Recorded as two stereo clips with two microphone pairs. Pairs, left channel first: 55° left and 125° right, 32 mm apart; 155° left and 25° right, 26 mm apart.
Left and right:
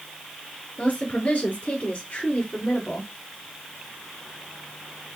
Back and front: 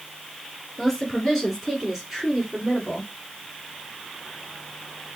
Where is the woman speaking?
80° left, 2.5 m; by 3.1 s 35° left, 2 m.